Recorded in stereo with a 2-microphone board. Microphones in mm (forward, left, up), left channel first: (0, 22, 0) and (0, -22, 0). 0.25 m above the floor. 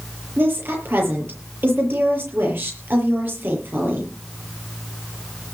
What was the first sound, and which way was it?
A woman speaking, 50° right (ahead or behind).